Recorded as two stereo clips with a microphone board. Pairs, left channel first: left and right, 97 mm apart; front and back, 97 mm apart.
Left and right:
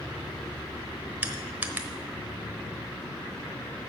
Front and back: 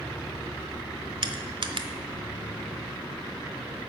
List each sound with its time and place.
1.2 s crushing: 160° right, 0.9 m